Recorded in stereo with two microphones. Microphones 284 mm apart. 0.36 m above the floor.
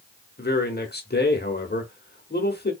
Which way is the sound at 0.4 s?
35° left (ahead or behind).